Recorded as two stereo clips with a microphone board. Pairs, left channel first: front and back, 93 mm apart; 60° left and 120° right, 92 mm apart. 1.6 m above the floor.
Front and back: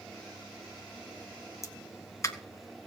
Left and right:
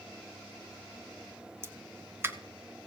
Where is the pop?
55° right, 1.3 m.